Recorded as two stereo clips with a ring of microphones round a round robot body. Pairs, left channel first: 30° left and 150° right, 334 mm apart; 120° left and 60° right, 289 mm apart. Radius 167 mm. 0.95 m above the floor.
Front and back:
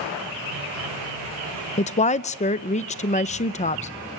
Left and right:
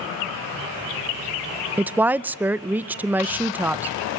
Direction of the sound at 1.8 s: 15° left.